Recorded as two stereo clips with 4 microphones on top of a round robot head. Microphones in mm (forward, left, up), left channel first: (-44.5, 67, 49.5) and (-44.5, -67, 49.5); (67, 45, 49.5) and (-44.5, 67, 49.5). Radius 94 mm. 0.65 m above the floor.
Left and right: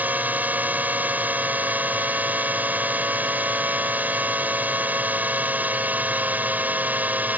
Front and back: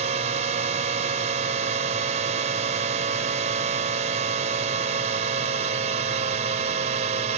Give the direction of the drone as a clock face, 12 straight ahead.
6 o'clock.